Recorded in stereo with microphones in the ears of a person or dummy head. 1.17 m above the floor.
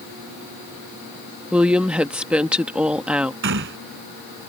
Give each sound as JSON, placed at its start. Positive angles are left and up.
{"t": 1.5, "sound": "a woman speaking", "side_deg": -5}
{"t": 3.4, "sound": "a gunshot", "side_deg": -70}